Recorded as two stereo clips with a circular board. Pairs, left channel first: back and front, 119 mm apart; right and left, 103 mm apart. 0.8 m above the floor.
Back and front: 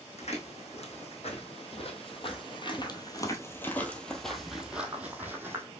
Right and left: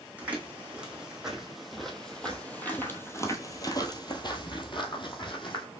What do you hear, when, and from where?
0.2 s footsteps: 165° left, 1.9 m; by 5.7 s 65° right, 1.5 m